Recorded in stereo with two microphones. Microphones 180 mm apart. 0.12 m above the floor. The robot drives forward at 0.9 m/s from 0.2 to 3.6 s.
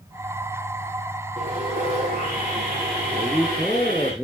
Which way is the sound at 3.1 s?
5° left (ahead or behind).